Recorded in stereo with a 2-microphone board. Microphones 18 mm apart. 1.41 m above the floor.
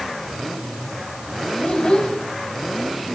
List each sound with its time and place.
1.6 s a child speaking: 60° left (ahead or behind), 5 m